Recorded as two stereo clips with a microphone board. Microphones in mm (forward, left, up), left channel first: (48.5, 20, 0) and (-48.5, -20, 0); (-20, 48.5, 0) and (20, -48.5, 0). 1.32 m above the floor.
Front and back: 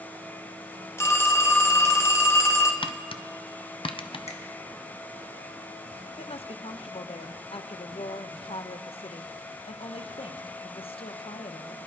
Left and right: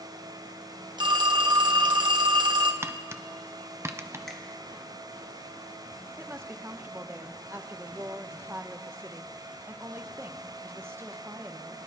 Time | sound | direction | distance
1.0 | a phone ringing | 35° right | 0.9 m
2.8 | tapping | 5° right | 0.5 m
4.3 | a finger snap | 25° left | 1.5 m
6.2 | a woman speaking | straight ahead | 0.7 m